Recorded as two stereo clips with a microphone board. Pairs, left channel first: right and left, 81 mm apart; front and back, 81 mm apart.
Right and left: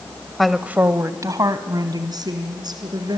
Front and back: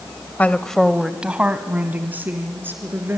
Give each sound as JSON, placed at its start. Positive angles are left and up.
{"t": 0.4, "sound": "a woman speaking", "azimuth_deg": -10, "distance_m": 0.9}